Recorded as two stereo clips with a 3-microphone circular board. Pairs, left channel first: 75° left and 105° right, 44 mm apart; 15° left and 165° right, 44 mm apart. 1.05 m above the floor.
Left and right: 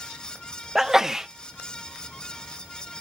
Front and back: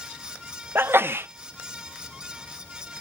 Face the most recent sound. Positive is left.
turn(degrees=175)